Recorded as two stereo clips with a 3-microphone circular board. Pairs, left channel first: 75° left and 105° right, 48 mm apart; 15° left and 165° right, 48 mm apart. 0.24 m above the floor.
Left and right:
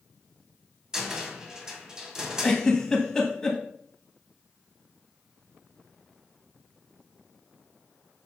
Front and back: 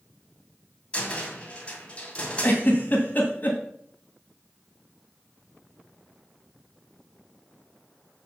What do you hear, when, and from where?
0.9 s a cupboard door: 35° right, 1.9 m
2.4 s a giggle: 5° left, 2.0 m